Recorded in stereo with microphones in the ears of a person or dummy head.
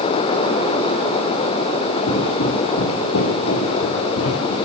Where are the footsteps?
65° left (ahead or behind), 6 m; by 4.5 s 80° left, 8 m.